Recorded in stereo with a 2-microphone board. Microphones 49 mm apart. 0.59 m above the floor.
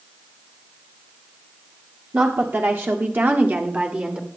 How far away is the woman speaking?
About 1.4 m.